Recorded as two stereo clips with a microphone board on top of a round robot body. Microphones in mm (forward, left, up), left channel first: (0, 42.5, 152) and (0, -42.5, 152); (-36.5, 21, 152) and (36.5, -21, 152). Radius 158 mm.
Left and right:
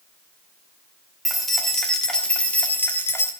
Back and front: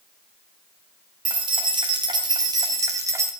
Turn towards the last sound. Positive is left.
turn(degrees=30)